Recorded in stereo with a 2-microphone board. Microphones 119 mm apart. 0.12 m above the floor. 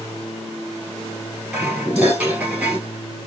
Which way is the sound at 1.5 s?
15° right (ahead or behind).